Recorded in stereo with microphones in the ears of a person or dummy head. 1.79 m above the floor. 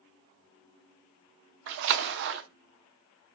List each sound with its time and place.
1.7 s a splash: 60° right (ahead or behind), 0.5 m